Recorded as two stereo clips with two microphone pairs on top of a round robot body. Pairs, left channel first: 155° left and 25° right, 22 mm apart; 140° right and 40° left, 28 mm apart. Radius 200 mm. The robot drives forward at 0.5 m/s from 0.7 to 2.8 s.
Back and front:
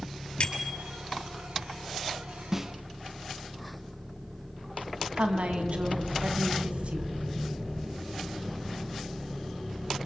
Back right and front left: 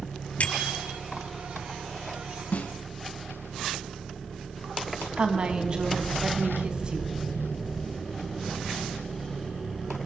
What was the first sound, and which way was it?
A bicycle bell, 165° right.